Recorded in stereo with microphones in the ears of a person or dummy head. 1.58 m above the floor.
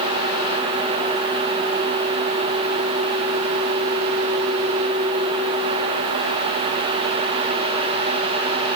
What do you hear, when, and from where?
Only background noise.